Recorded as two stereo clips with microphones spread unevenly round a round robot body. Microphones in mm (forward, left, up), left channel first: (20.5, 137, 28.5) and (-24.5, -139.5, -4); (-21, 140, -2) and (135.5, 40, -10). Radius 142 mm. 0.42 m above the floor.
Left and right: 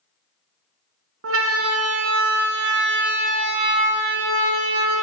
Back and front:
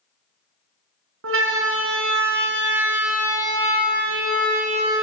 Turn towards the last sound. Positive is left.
turn(degrees=-100)